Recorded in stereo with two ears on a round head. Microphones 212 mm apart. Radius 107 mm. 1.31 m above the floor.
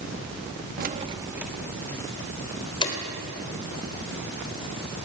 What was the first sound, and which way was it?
Keys jangling, 40° right (ahead or behind).